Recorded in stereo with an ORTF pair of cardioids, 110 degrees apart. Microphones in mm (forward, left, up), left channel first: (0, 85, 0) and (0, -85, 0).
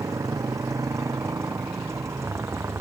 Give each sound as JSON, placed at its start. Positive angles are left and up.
{"t": 0.0, "sound": "a motorcycle", "azimuth_deg": -20}